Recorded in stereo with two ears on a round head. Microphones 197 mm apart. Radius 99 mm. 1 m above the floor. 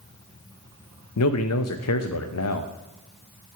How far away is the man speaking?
About 0.7 m.